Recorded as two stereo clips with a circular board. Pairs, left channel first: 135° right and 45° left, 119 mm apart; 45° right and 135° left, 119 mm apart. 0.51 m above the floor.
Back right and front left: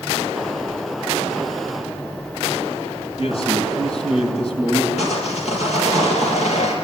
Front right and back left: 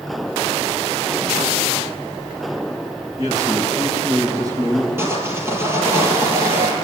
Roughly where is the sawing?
Behind right.